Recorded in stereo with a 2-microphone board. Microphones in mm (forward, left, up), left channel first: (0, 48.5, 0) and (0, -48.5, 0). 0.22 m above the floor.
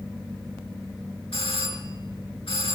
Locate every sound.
1.3 s a doorbell: 65° left (ahead or behind), 5 m